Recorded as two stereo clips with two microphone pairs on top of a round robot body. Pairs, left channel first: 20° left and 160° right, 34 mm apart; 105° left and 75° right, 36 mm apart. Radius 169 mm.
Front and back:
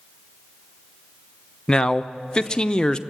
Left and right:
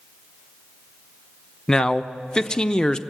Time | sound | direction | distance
1.7 | a man speaking | 40° left | 1.0 m